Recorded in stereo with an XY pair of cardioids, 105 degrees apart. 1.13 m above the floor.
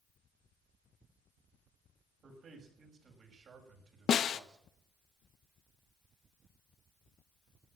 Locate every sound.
2.2 s a man speaking: 60° right, 6.5 m; by 4.7 s 50° right, 5 m
4.1 s a snare drum: 60° left, 0.9 m